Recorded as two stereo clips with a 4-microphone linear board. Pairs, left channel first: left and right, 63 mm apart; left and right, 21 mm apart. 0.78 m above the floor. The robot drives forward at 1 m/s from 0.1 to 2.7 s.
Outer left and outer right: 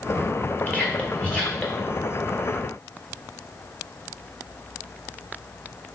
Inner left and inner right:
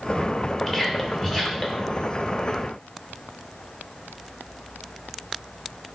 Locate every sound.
0.7 s whispering: 25° left (ahead or behind), 3 m; by 1.9 s 20° left (ahead or behind), 4 m